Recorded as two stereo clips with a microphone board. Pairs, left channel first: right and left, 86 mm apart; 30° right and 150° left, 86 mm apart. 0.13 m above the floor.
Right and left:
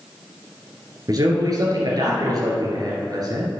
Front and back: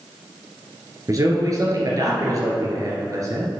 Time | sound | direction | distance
1.1 | a man speaking | 115° left | 2 m